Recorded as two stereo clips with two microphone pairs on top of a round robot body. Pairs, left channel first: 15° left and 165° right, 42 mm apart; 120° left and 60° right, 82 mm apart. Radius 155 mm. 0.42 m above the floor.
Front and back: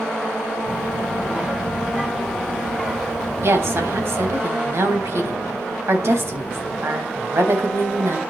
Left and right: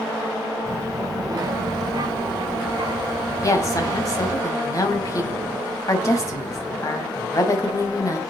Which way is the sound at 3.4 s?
175° left.